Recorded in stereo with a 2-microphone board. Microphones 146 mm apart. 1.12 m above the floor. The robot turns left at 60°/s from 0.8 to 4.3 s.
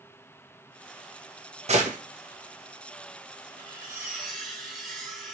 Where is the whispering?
No whispering in this recording.